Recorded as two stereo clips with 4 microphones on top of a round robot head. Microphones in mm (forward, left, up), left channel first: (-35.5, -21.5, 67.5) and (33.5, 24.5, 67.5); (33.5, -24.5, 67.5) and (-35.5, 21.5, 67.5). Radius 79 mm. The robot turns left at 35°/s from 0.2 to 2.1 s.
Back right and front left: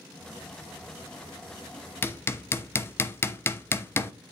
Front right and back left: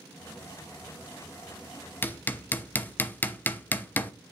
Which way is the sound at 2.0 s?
90° right.